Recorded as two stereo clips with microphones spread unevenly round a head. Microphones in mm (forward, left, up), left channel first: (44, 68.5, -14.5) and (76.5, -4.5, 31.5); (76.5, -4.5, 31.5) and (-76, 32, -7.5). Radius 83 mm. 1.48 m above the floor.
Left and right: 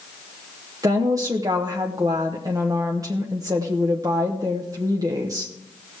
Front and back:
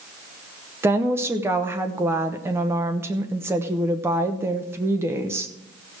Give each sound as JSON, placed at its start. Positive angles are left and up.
{"t": 0.8, "sound": "a woman speaking", "azimuth_deg": -115, "distance_m": 0.8}